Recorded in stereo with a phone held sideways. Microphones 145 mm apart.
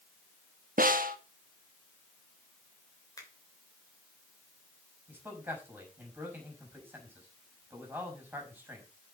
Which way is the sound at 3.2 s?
25° left (ahead or behind).